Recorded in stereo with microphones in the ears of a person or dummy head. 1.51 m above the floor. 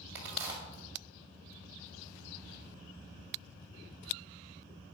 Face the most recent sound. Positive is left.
turn(degrees=-10)  # may be behind; listen again after turning